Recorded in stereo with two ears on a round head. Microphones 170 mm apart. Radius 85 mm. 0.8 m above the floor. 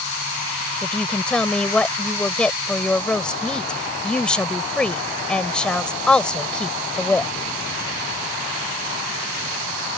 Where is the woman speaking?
5° left (ahead or behind).